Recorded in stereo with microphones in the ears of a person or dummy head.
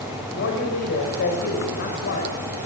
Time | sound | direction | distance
0.3 | a man speaking | 60° left (ahead or behind) | 5.5 m